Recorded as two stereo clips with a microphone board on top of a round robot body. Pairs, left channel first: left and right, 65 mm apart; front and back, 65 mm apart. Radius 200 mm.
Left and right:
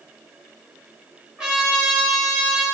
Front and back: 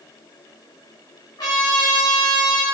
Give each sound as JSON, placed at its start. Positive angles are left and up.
{"t": 1.4, "sound": "a trumpet", "azimuth_deg": -15, "distance_m": 0.6}